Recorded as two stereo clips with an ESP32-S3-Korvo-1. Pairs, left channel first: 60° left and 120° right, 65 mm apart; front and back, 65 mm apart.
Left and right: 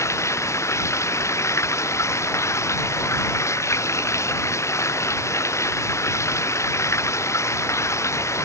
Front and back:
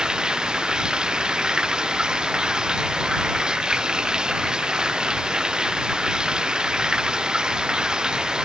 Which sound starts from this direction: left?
Running water, at 0.0 s.